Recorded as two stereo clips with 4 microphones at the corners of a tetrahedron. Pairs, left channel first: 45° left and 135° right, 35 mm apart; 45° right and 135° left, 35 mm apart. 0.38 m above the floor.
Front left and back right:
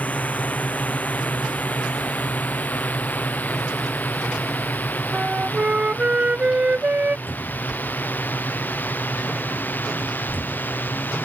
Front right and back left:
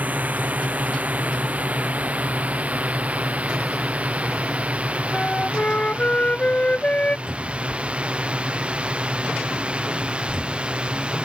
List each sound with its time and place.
0.0 s a drone: 95° left; by 11.2 s 75° left
5.1 s a flute: 90° right
7.3 s a cupboard door: 70° left